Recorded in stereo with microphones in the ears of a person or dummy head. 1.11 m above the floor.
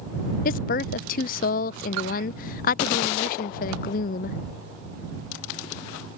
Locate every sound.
0.5 s a woman speaking: 40° left (ahead or behind)